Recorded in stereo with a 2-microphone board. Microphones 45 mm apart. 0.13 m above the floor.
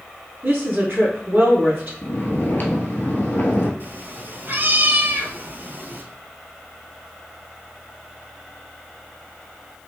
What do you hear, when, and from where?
0.4 s a woman speaking: 45° right (ahead or behind), 1.4 m
2.0 s snoring: 45° left (ahead or behind), 0.8 m
3.8 s a cat meowing: 45° right (ahead or behind), 0.6 m